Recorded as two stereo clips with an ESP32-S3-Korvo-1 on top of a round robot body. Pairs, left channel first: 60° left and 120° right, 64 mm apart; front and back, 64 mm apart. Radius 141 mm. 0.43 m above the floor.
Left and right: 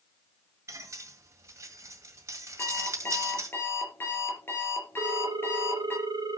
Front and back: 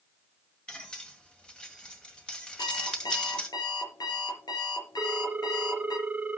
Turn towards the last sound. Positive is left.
turn(degrees=-110)